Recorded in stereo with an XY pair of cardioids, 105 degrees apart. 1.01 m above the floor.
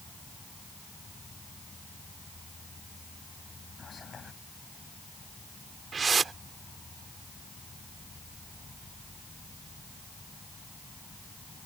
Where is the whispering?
40° left.